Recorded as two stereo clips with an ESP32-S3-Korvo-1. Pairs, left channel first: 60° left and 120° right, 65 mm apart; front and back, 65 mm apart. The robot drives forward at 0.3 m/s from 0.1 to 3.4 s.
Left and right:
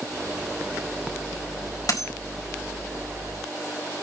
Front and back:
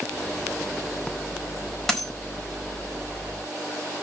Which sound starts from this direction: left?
A dropped coin, at 1.9 s.